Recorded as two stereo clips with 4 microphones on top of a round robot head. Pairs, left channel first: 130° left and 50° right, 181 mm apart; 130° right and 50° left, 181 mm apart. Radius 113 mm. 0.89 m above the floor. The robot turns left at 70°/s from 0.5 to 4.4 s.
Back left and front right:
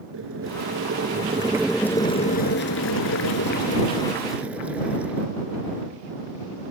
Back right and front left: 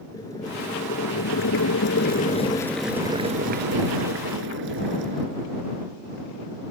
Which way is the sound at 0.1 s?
55° right.